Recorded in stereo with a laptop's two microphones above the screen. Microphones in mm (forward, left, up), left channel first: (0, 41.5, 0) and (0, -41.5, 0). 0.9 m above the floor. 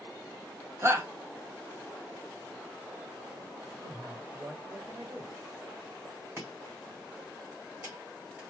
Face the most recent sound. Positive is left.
turn(degrees=-25)  # may be behind; listen again after turning